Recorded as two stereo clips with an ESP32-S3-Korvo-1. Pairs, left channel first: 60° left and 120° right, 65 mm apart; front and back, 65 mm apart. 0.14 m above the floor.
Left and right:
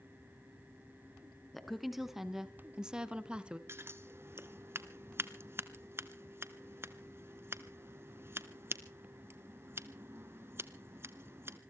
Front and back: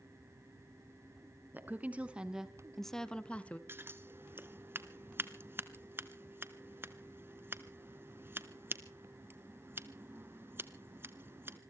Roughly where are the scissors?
Behind right.